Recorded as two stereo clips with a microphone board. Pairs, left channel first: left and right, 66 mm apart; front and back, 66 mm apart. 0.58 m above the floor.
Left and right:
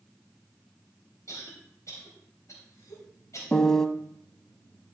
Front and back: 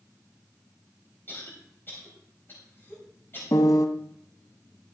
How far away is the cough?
About 4 m.